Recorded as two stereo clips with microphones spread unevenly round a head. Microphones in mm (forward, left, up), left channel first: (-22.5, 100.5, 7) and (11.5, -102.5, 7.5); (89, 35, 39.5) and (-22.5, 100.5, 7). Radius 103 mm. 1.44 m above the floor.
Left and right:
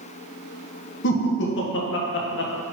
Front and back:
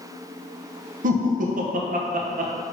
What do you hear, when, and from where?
1.0 s laughter: 125° left, 0.6 m